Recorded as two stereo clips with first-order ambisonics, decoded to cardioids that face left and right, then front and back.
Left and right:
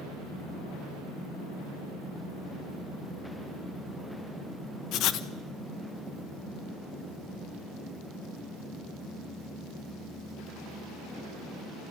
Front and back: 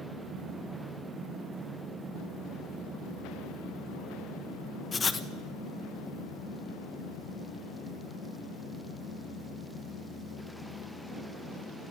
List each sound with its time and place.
4.9 s writing: 70° left, 1.1 m